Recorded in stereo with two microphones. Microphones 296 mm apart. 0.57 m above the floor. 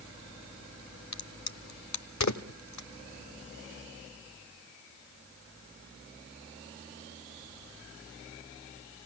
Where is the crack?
65° left (ahead or behind), 0.9 m.